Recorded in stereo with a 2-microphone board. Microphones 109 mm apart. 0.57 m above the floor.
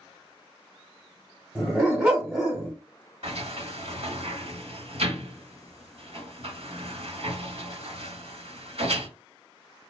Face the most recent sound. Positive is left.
turn(degrees=-65)  # may be behind; listen again after turning